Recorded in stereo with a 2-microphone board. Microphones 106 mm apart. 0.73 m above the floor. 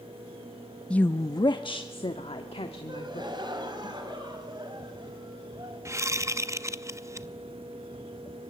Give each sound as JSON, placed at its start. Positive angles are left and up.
{"t": 0.9, "sound": "a woman speaking", "side_deg": 10, "distance_m": 0.5}
{"t": 2.9, "sound": "a gasp", "side_deg": -45, "distance_m": 3.0}
{"t": 5.8, "sound": "a whoosh", "side_deg": -25, "distance_m": 0.6}